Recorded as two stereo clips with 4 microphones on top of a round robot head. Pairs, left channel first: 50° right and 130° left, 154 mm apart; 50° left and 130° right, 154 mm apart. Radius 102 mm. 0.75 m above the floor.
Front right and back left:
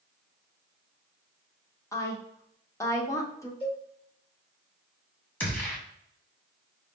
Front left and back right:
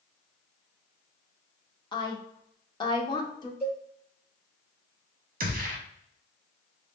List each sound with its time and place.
1.9 s a woman speaking: 10° left, 1.1 m
3.6 s a cowbell: 110° right, 2 m
5.4 s a gunshot: 125° right, 1.2 m